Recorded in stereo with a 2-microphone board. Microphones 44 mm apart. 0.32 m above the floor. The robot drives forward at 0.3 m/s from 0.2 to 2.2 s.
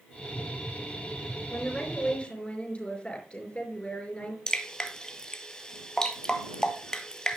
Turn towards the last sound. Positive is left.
turn(degrees=15)  # may be behind; listen again after turning